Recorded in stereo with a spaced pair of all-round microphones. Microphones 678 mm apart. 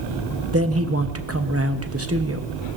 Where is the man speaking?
20° right (ahead or behind), 1.0 m.